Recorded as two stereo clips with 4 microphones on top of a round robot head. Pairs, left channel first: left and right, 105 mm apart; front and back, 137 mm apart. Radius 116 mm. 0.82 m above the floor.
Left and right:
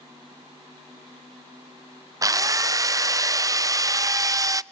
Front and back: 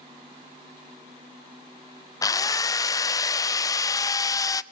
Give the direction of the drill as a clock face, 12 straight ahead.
2 o'clock.